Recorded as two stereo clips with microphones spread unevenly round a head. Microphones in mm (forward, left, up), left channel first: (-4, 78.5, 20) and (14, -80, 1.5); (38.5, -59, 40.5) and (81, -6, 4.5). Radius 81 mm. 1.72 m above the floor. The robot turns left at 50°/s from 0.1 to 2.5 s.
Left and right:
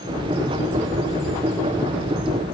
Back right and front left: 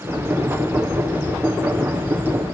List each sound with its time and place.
Only background noise.